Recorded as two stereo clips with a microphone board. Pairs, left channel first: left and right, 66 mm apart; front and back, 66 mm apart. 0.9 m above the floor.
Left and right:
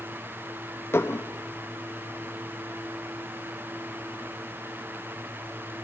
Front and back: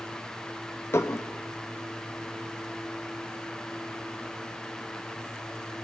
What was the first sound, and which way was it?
Dishes clattering, 40° left.